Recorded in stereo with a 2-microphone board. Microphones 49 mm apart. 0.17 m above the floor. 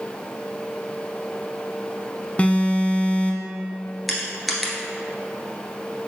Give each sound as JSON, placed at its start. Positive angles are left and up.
{"t": 2.4, "sound": "an alarm", "side_deg": 30, "distance_m": 0.7}
{"t": 4.1, "sound": "crushing", "side_deg": 0, "distance_m": 1.3}